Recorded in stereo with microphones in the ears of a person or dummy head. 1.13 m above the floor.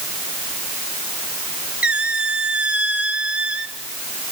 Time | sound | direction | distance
1.8 | a squeak | 5° right (ahead or behind) | 0.8 m